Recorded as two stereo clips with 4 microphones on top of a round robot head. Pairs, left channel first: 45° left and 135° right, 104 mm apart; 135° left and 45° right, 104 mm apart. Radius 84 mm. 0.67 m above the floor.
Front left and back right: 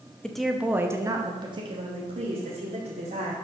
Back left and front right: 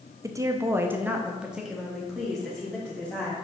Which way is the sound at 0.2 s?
30° right.